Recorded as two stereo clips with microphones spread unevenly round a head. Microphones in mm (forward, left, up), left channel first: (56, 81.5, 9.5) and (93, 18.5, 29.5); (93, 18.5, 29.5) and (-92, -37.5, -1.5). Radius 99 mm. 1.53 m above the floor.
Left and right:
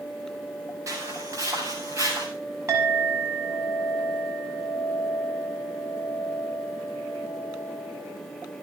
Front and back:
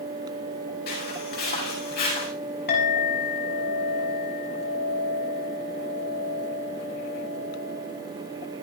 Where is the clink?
20° right, 6.5 m.